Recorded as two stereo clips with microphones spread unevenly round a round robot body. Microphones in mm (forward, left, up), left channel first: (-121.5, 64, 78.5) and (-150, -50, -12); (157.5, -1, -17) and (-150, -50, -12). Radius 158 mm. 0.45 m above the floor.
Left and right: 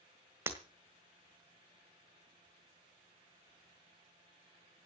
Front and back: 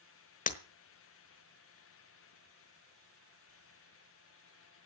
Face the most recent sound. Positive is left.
turn(degrees=-55)